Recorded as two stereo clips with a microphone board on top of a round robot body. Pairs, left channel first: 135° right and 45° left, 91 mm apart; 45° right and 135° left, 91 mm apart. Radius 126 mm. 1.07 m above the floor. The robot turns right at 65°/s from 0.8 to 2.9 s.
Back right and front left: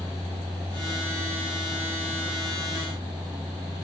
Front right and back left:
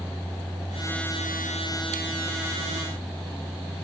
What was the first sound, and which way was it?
Only background noise.